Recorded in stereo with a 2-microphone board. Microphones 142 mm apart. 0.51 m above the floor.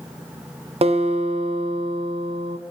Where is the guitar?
50° right (ahead or behind), 0.6 m.